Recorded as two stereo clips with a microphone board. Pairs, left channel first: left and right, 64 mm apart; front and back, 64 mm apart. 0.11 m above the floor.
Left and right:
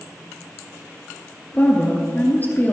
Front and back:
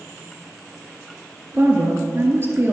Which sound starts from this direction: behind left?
A woman speaking, at 1.5 s.